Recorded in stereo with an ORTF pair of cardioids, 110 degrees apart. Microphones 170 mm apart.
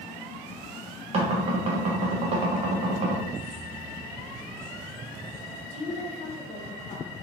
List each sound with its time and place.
1.1 s knocking: 40° right, 1.0 m
3.3 s keys jangling: 45° right, 1.3 m
5.7 s a woman speaking: 40° left, 0.9 m